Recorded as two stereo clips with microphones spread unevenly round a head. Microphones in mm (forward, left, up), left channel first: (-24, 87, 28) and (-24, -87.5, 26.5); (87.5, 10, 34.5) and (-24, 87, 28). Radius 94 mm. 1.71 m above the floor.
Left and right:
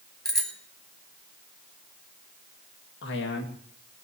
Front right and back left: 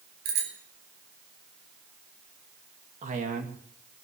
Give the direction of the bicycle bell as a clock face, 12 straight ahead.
6 o'clock.